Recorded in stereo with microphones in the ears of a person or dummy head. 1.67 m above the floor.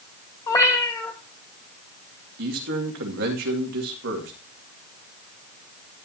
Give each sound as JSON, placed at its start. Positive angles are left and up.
{"t": 0.5, "sound": "a cat meowing", "side_deg": 20, "distance_m": 2.5}
{"t": 2.4, "sound": "a man speaking", "side_deg": -60, "distance_m": 2.5}